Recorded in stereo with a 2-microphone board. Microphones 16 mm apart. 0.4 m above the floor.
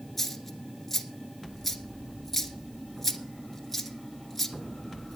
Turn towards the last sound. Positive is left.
turn(degrees=0)  # may be behind; listen again after turning